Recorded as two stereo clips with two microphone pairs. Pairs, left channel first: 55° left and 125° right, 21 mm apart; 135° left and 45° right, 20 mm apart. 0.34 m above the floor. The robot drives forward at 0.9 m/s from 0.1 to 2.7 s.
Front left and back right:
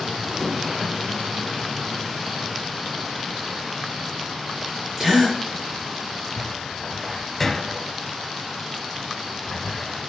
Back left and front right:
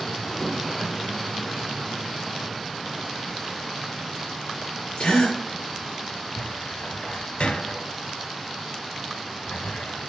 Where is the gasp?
155° left, 4.5 m.